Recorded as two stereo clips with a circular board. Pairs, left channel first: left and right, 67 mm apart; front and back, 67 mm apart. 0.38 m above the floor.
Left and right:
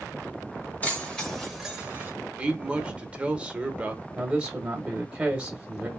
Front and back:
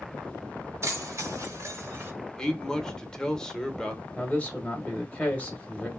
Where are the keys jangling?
150° left, 1.3 m; by 2.1 s 145° right, 1.2 m.